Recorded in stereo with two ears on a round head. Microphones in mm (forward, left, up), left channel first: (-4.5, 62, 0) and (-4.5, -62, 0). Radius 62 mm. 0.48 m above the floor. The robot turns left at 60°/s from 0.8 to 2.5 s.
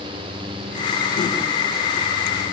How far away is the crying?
No crying in this recording.